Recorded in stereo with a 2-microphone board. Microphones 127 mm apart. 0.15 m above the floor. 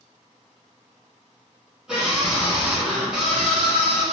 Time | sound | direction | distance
1.9 | a scream | 5° right (ahead or behind) | 1.5 m